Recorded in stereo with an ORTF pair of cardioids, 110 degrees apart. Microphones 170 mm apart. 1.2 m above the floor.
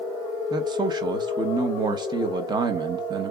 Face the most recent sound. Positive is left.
turn(degrees=-25)